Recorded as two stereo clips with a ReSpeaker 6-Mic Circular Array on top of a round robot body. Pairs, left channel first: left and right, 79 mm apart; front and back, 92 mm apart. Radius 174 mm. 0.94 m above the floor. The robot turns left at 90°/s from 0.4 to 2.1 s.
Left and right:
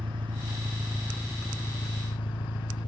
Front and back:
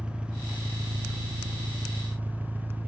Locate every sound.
0.0 s an engine running: 100° right, 1.2 m; by 2.9 s 105° left, 1.2 m